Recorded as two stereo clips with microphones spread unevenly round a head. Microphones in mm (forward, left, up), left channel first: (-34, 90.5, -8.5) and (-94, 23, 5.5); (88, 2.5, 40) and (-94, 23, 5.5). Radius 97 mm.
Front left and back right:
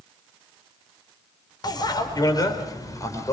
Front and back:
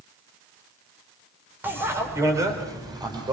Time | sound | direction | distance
1.6 | a bicycle bell | 90° left | 4 m